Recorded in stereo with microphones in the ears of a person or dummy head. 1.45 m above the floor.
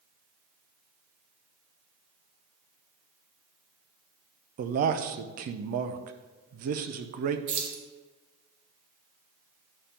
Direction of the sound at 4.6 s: 50° right (ahead or behind).